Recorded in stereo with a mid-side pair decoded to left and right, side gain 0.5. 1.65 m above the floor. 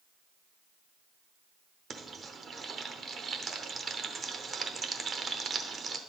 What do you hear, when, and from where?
1.9 s frying: 40° right, 0.8 m